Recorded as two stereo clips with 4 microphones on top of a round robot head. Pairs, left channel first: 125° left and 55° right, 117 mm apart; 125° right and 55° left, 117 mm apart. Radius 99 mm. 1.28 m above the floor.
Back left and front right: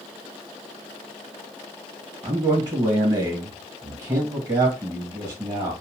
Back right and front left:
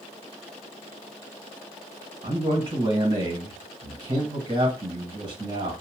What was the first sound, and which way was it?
A man speaking, 15° left.